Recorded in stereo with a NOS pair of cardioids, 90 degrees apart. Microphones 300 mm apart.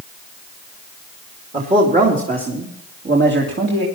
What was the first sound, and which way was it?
A man speaking, 20° right.